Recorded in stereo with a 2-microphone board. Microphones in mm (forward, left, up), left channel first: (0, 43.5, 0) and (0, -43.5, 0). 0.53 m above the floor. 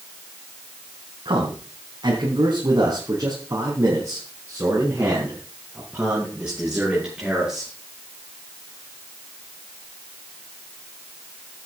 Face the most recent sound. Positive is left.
turn(degrees=-10)  # may be behind; listen again after turning